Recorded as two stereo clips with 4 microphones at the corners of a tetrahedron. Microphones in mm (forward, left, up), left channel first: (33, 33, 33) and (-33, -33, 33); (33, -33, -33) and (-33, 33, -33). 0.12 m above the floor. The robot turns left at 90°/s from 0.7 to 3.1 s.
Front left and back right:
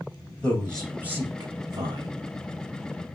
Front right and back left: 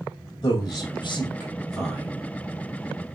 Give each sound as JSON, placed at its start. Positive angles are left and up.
{"t": 0.4, "sound": "a man speaking", "azimuth_deg": -30, "distance_m": 2.5}